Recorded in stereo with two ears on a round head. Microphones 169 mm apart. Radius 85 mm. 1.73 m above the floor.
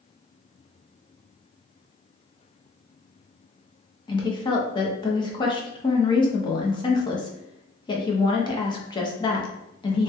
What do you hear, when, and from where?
4.1 s a woman speaking: 25° left (ahead or behind), 0.6 m